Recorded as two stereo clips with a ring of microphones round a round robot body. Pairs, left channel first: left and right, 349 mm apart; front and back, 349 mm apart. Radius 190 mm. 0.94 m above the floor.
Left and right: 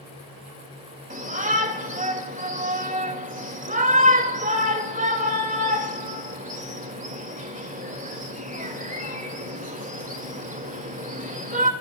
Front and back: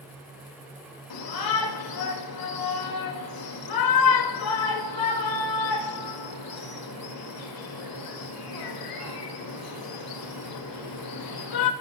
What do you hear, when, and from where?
1.1 s a shout: 20° right, 4 m